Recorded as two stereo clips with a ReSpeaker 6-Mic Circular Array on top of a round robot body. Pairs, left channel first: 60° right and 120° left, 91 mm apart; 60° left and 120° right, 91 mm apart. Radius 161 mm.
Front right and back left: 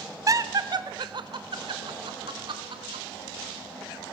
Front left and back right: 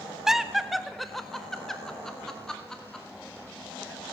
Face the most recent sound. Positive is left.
turn(degrees=145)